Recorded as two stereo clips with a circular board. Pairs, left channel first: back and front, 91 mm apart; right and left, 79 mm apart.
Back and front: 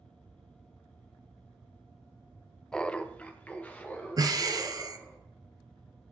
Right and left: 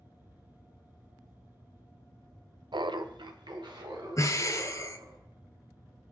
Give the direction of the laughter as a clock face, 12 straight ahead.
9 o'clock.